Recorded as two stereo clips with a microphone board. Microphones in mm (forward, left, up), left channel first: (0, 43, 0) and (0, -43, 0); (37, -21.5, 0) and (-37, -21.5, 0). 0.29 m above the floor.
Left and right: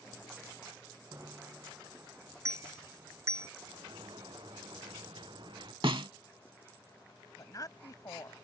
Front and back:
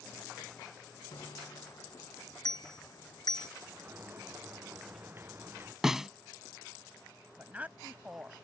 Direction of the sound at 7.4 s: 115° left.